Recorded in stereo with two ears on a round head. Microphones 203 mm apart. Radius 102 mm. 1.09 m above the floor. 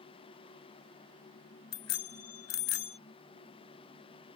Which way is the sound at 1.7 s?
75° left (ahead or behind).